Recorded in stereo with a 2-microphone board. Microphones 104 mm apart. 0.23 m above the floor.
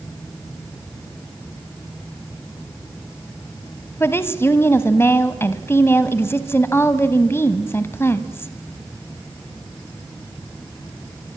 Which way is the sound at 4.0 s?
25° left (ahead or behind).